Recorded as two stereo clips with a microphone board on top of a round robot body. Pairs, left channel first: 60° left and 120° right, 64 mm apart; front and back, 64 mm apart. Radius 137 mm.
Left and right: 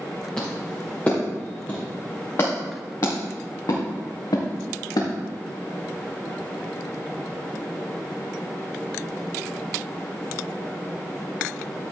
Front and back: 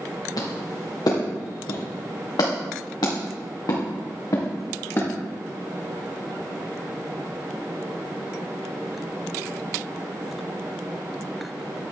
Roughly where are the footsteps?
Ahead.